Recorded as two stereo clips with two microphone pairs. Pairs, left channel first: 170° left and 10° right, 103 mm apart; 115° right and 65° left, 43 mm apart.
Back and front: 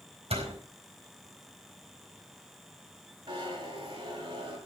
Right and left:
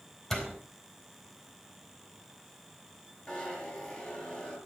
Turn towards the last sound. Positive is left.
turn(degrees=-50)